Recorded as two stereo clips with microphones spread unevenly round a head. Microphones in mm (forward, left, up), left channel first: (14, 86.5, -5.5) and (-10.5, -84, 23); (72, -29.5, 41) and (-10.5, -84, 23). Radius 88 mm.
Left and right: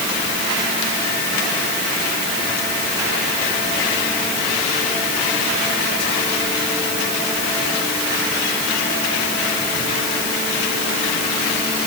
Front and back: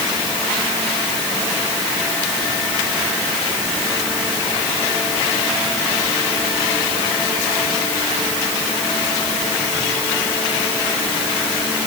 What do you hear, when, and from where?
Only background noise.